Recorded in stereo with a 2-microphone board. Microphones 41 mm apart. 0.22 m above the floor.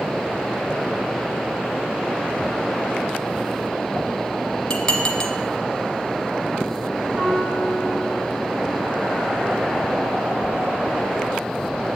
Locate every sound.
4.7 s dishes clattering: 15° left (ahead or behind), 1.4 m
7.2 s a piano: 30° right (ahead or behind), 5 m